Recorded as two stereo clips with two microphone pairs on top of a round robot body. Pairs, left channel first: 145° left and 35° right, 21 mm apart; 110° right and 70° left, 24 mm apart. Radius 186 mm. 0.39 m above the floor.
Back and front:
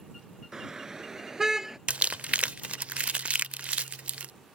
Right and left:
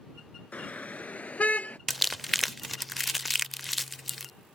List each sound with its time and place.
0.5 s a car horn: 95° right; by 1.8 s 100° right
1.9 s crumpling: 25° right